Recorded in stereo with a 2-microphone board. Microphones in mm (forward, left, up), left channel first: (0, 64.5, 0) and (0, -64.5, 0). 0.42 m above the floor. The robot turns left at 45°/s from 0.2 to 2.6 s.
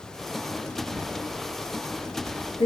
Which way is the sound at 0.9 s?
25° right (ahead or behind).